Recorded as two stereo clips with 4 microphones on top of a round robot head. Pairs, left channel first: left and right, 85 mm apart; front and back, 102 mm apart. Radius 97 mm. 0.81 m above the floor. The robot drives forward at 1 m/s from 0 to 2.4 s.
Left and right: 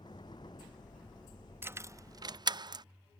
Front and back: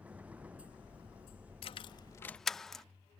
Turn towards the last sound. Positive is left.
turn(degrees=-85)